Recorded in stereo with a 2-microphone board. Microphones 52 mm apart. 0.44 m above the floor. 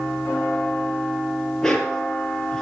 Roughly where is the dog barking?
Centre.